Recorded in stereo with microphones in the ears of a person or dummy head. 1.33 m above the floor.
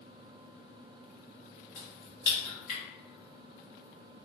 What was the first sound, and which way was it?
A crack, 55° left (ahead or behind).